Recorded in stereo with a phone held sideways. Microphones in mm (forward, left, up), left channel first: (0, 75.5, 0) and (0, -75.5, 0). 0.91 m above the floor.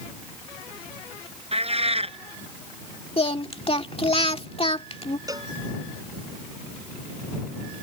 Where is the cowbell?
25° right (ahead or behind).